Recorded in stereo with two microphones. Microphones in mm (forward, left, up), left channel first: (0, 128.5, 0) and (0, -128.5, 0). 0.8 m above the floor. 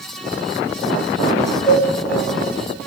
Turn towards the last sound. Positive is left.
turn(degrees=5)  # may be behind; listen again after turning